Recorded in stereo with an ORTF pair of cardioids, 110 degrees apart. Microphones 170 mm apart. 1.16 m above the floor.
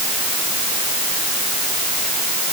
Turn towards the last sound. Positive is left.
No sound to turn to.